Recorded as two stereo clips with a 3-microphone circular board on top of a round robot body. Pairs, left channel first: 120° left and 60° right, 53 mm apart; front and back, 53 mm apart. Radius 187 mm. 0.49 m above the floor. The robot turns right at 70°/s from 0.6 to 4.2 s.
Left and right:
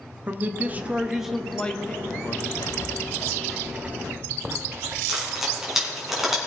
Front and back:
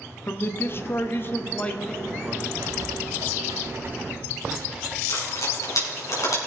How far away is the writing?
About 0.6 m.